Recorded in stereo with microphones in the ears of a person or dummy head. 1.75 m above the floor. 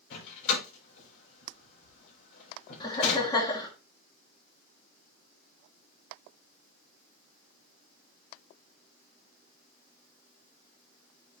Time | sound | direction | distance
0.1 | a door slam | 75° left (ahead or behind) | 4.5 m
2.8 | laughter | 20° left (ahead or behind) | 1.6 m